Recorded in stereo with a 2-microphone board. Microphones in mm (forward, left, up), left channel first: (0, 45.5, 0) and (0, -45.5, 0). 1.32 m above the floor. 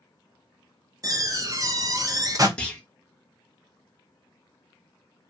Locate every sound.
1.0 s a door slam: 40° right (ahead or behind), 0.5 m
2.6 s a clunk: 10° left (ahead or behind), 0.7 m